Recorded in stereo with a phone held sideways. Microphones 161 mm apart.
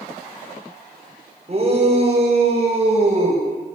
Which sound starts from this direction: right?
A shout, at 1.5 s.